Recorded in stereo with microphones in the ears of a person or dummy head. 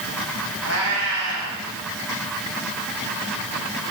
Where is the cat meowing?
65° left (ahead or behind), 4.5 m.